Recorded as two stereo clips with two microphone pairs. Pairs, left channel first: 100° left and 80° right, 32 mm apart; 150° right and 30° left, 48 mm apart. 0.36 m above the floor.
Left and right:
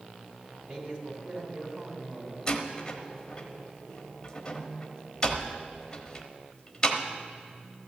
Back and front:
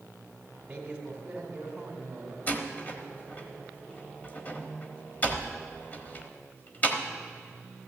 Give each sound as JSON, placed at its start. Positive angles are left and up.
{"t": 0.7, "sound": "a man speaking", "azimuth_deg": -35, "distance_m": 2.0}
{"t": 2.5, "sound": "a door slam", "azimuth_deg": 165, "distance_m": 1.1}